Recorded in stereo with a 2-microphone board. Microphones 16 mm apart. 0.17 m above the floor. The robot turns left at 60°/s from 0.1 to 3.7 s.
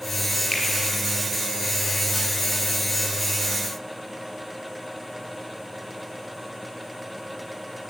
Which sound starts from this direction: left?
A finger snap, at 0.5 s.